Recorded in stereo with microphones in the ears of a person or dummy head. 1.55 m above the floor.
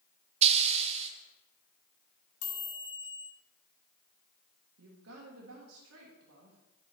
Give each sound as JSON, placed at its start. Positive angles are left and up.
{"t": 0.4, "sound": "a hiss", "side_deg": -35, "distance_m": 0.7}
{"t": 2.4, "sound": "a chime", "side_deg": 60, "distance_m": 2.0}
{"t": 4.8, "sound": "a woman speaking", "side_deg": -90, "distance_m": 1.6}